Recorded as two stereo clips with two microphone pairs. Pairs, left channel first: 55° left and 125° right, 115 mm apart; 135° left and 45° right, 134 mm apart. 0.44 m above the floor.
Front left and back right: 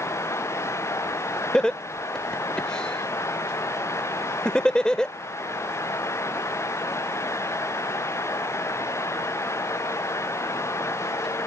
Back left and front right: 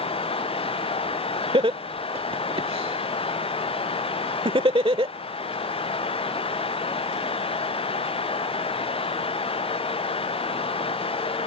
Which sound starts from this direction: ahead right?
Laughter, at 1.5 s.